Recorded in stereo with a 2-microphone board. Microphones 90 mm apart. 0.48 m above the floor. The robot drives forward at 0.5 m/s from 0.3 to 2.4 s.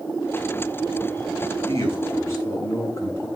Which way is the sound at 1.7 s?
35° left (ahead or behind).